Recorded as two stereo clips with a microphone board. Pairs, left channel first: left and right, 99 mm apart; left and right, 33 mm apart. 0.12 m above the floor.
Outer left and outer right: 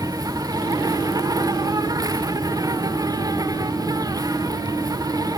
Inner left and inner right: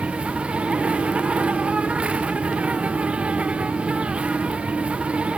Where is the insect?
40° right (ahead or behind), 1.4 m.